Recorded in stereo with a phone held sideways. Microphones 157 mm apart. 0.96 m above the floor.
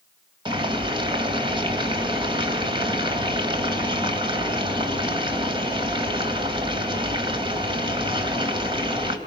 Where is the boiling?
30° right (ahead or behind), 3 m.